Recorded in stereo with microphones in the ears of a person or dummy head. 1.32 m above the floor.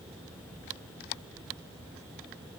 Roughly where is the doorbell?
No doorbell in this recording.